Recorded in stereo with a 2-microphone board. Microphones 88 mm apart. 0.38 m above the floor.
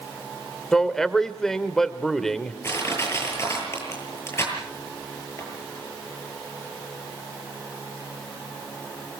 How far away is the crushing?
About 9 m.